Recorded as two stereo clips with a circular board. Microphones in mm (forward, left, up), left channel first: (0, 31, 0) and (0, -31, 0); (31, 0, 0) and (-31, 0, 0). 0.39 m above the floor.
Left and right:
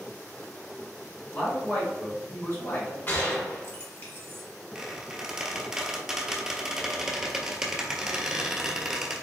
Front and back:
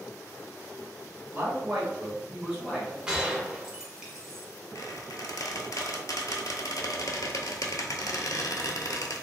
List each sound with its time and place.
1.3 s a man speaking: 135° left, 1.7 m; by 3.0 s 95° left, 1.6 m
3.1 s a gunshot: 110° left, 0.8 m
4.8 s a squeak: 10° right, 0.6 m